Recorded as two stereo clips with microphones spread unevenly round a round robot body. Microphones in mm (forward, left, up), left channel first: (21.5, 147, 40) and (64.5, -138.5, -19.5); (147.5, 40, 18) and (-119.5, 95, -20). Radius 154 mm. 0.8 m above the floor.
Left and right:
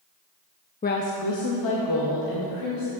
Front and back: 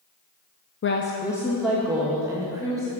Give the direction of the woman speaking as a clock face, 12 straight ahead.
11 o'clock.